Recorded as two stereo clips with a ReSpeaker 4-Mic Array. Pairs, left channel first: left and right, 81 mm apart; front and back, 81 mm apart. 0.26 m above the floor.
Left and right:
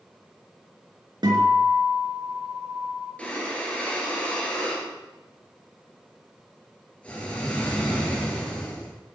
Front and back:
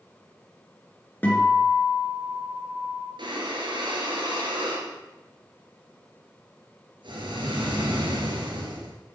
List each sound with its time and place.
1.2 s a guitar: 70° right, 4.5 m
3.2 s breathing: 165° left, 3.5 m